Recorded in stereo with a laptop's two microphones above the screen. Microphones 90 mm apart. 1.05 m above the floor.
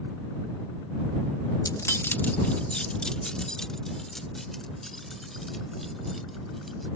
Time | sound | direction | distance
1.6 | keys jangling | 45° left (ahead or behind) | ?